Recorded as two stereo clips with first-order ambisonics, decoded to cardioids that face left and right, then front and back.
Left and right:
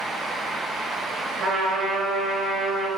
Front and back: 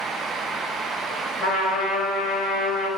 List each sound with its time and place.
1.4 s a trumpet: 40° right, 1.6 m